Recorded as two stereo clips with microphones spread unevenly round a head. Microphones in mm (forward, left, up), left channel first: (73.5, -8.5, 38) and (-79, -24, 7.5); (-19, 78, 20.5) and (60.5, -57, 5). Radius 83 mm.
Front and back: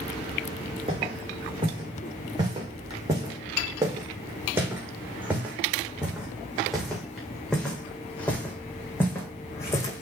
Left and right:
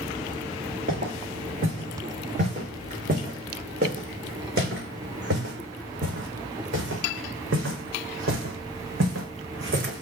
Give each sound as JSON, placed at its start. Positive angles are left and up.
{"t": 0.9, "sound": "footsteps", "azimuth_deg": -115, "distance_m": 5.5}